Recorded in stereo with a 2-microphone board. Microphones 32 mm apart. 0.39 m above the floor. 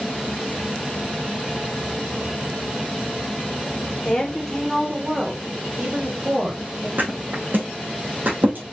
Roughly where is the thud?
Right.